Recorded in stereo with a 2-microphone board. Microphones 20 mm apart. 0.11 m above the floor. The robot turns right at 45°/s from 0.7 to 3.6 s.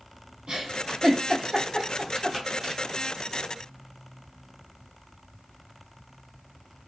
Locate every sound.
0.5 s a giggle: 55° right (ahead or behind), 1.5 m; by 2.8 s 20° left (ahead or behind), 1.5 m